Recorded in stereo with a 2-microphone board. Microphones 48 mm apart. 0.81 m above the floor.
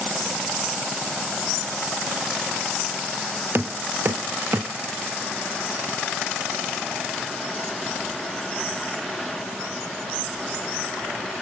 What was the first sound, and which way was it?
Knocking, 50° right (ahead or behind).